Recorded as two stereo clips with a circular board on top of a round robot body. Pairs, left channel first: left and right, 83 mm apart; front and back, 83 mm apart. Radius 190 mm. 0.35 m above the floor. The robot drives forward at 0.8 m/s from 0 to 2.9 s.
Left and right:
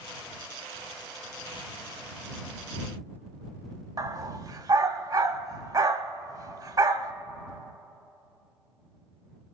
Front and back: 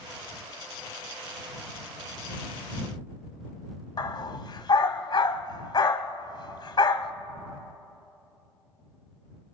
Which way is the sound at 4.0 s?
45° right.